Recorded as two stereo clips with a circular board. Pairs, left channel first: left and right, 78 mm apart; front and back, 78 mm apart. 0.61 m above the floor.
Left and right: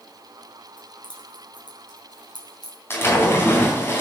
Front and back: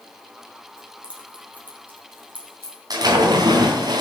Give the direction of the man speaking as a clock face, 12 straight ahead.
I don't hear a man speaking.